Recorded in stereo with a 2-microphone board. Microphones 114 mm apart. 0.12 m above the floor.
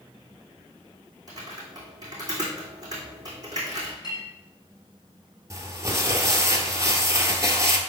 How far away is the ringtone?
I don't hear a ringtone.